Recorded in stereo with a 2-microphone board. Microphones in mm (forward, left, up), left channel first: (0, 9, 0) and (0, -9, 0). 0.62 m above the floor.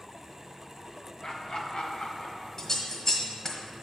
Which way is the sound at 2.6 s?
35° left (ahead or behind).